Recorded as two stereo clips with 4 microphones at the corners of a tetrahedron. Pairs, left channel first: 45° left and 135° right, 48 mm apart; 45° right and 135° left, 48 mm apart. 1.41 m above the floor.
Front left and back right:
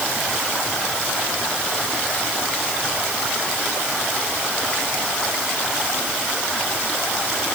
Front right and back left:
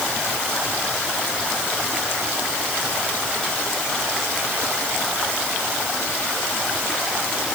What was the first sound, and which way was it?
Only background noise.